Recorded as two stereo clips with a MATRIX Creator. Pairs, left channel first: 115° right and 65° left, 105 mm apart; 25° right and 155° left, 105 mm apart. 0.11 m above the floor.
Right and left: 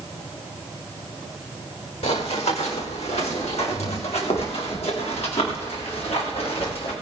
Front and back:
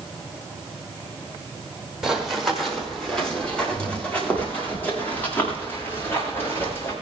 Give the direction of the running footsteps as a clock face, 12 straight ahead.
4 o'clock.